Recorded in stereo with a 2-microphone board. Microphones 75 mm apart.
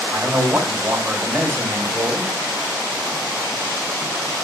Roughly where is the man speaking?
Right.